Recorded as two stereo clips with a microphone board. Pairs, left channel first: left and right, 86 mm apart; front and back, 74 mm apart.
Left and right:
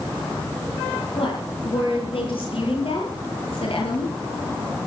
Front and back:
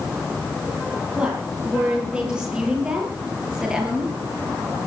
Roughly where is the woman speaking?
Left.